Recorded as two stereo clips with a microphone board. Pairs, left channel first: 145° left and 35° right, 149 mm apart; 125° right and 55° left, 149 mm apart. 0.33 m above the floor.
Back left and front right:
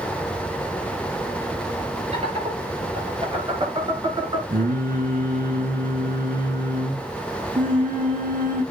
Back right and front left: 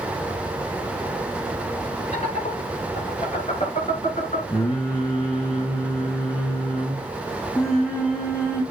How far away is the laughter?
About 6.5 m.